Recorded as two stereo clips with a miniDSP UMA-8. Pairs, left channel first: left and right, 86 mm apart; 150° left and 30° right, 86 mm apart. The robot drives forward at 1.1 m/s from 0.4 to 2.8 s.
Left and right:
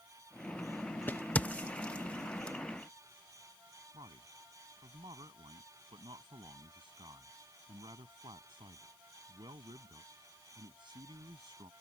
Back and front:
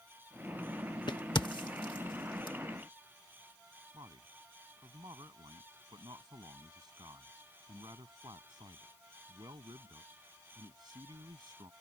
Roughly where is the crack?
Behind left.